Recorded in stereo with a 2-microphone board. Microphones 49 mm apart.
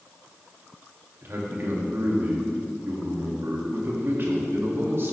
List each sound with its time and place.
1.2 s a man speaking: 45° right (ahead or behind), 1.4 m